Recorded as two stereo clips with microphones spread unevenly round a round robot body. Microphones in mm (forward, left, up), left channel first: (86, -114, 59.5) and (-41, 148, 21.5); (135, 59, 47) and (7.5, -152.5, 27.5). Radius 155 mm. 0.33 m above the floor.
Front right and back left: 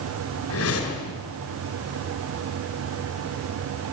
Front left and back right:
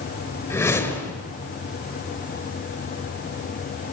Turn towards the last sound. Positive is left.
turn(degrees=-20)